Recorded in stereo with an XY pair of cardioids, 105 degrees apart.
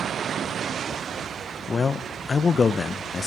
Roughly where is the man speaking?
Ahead left.